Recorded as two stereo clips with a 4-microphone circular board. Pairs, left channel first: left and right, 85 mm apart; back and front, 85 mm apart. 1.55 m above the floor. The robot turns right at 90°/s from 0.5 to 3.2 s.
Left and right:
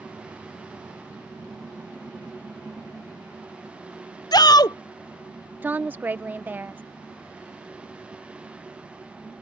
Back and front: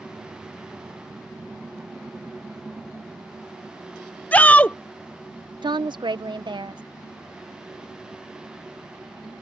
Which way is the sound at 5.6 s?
25° right.